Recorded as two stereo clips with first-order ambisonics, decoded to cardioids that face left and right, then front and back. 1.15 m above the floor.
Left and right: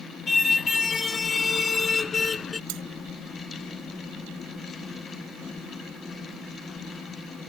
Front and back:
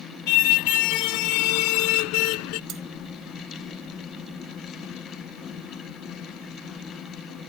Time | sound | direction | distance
0.3 | a car horn | 15° left | ?
2.7 | cutlery clinking | 120° right | ?